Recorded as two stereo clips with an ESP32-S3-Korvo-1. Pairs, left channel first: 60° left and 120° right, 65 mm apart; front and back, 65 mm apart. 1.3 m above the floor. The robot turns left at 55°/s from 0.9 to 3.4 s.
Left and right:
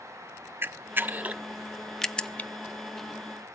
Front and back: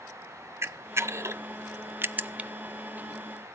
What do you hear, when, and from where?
0.6 s a camera shutter: 155° right, 0.6 m; by 2.5 s 115° left, 0.6 m